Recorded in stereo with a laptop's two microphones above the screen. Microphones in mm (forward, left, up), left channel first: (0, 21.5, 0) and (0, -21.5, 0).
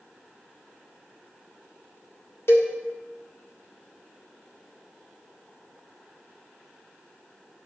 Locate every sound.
2.5 s a cowbell: 65° left (ahead or behind), 1.3 m